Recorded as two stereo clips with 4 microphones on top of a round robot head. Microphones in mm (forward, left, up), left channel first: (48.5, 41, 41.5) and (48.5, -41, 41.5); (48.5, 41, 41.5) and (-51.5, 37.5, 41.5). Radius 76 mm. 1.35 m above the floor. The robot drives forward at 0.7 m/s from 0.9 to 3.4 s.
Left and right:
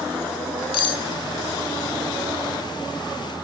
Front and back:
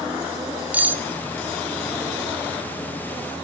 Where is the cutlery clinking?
110° left, 1.0 m; by 1.0 s 115° left, 1.1 m.